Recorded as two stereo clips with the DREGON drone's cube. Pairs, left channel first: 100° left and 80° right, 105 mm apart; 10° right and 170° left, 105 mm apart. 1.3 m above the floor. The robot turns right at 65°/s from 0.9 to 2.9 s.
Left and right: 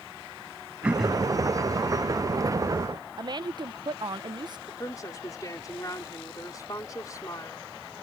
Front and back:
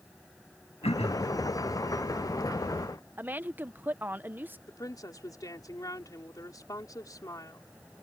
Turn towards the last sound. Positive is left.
turn(degrees=45)